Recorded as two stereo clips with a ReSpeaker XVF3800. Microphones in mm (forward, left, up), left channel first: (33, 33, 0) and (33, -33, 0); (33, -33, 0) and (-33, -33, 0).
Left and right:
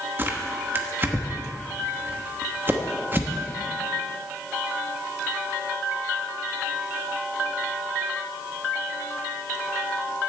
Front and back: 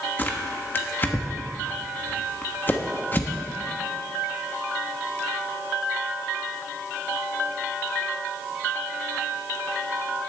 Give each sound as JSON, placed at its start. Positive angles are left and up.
{"t": 0.2, "sound": "tearing paper", "azimuth_deg": -45, "distance_m": 1.0}